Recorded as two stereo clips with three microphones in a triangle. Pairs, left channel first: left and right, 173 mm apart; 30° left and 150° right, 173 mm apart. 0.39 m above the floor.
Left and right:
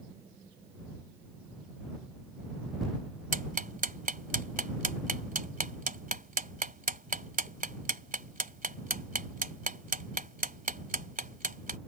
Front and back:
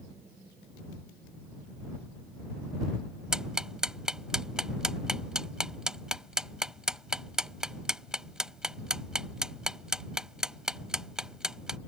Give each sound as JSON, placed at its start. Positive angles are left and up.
{"t": 3.3, "sound": "ticking", "azimuth_deg": -65}